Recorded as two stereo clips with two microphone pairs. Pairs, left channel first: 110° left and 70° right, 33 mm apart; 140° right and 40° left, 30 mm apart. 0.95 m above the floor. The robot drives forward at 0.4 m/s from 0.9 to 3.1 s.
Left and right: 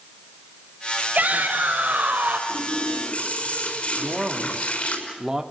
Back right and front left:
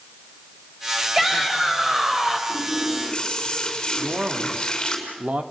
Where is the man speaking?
5° left, 2 m.